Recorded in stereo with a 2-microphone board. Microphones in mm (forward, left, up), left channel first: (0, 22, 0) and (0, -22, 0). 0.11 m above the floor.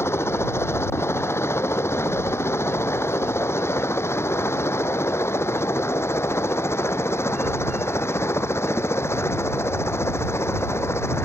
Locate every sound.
0.0 s a helicopter: 70° left (ahead or behind); by 11.3 s 75° left (ahead or behind)